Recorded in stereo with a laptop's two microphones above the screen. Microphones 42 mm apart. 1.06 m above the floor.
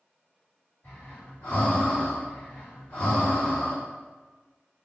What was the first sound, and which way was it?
Breathing, 50° left (ahead or behind).